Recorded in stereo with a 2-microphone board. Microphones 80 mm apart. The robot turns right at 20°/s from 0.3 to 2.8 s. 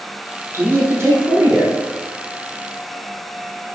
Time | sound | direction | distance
0.5 | a man speaking | 35° right (ahead or behind) | 1.7 m